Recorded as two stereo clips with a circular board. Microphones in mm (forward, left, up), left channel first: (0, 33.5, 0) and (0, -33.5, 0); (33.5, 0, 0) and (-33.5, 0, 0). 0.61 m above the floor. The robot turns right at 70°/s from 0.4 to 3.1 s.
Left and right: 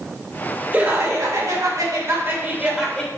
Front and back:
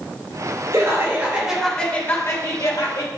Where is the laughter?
150° right, 2.5 m; by 3.1 s 15° left, 2.5 m.